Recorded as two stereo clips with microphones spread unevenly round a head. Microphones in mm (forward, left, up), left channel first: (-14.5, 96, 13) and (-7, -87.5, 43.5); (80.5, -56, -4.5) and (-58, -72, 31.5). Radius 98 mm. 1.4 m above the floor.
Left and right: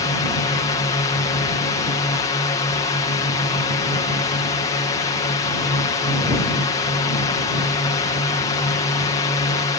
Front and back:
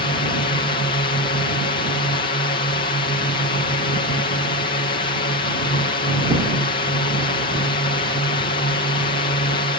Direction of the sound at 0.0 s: 35° left.